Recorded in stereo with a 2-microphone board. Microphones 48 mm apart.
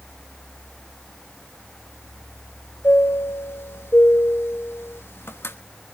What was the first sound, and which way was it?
A chime, 60° left (ahead or behind).